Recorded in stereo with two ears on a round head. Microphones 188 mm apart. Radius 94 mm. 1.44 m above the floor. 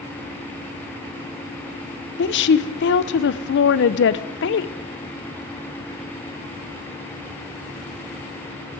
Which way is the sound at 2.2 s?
55° left (ahead or behind).